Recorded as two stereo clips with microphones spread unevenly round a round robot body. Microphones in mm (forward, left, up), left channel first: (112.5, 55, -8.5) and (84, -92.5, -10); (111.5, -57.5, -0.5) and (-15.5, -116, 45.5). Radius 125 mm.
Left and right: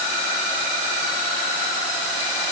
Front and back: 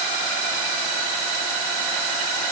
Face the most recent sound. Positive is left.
No sound to turn to.